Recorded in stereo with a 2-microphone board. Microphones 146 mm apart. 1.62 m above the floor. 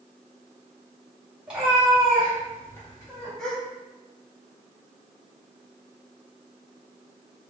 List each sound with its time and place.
1.5 s a cat meowing: 10° right (ahead or behind), 2 m; by 3.3 s 25° left (ahead or behind), 2.5 m
3.4 s a gasp: 5° left (ahead or behind), 1.3 m